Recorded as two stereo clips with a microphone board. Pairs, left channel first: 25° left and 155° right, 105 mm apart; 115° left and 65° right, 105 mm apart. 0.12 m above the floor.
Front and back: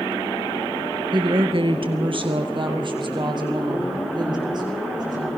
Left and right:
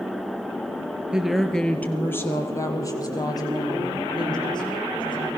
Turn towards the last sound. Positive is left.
turn(degrees=155)